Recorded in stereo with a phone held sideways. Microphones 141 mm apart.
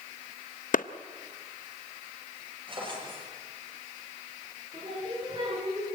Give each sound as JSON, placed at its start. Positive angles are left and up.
{"t": 0.7, "sound": "a clap", "side_deg": 70, "distance_m": 0.7}
{"t": 2.7, "sound": "a drawer", "side_deg": -35, "distance_m": 8.0}
{"t": 4.7, "sound": "singing", "side_deg": -35, "distance_m": 10.0}